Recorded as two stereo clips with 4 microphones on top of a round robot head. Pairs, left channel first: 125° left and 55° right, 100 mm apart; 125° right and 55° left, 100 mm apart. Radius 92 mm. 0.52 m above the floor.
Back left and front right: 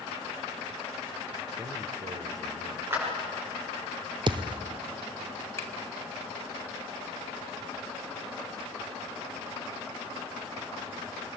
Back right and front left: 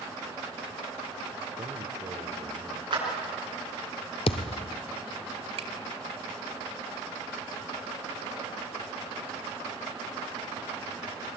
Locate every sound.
1.6 s a man speaking: straight ahead, 1.7 m; by 2.8 s 10° right, 2.5 m
2.9 s a clap: 10° left, 8 m
4.3 s a thud: 95° right, 0.7 m
5.6 s a finger snap: 60° left, 2.5 m